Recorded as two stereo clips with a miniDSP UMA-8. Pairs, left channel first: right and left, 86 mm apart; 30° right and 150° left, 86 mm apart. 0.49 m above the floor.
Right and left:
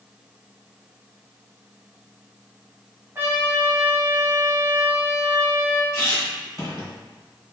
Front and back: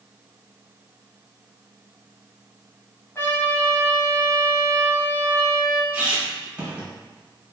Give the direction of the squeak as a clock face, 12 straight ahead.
5 o'clock.